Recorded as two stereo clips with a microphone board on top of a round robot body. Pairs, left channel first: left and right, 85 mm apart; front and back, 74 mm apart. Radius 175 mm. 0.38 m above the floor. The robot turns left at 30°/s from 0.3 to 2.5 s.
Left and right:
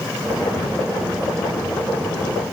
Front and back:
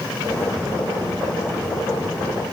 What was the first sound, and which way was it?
Only background noise.